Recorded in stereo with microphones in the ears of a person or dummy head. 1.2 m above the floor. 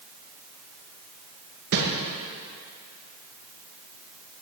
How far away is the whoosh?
About 1.4 m.